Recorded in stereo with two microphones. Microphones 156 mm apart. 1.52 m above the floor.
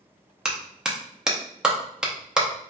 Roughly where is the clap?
Centre.